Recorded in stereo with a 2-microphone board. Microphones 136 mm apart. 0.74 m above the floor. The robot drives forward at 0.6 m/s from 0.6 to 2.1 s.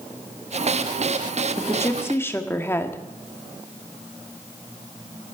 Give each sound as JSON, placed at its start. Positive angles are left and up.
{"t": 1.6, "sound": "a woman speaking", "side_deg": 20, "distance_m": 1.3}